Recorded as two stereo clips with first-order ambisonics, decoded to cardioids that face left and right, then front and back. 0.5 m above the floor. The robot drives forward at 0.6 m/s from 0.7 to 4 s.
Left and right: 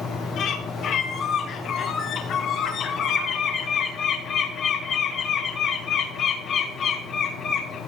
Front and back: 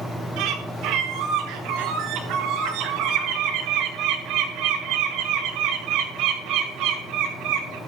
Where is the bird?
145° left, 8.5 m; by 7.8 s 150° left, 10.5 m.